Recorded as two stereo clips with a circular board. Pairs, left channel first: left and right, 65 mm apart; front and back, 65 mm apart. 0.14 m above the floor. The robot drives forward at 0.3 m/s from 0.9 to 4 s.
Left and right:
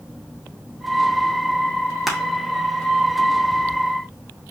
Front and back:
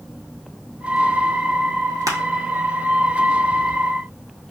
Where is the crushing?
175° right, 0.9 m.